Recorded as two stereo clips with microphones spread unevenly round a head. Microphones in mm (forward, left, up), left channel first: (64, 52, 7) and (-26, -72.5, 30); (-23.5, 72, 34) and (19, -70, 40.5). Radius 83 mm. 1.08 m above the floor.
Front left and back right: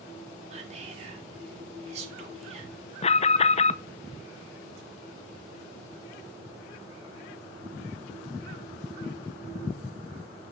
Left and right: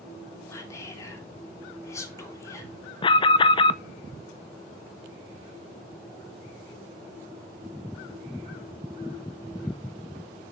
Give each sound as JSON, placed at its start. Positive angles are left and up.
{"t": 0.5, "sound": "whispering", "azimuth_deg": 180, "distance_m": 3.0}
{"t": 3.0, "sound": "an alarm", "azimuth_deg": 65, "distance_m": 0.6}